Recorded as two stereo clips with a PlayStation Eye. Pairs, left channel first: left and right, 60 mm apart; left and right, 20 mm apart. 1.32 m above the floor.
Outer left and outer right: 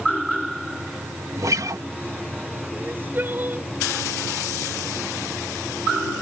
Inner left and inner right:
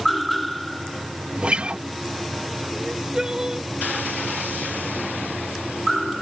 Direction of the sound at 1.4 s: 60° right (ahead or behind).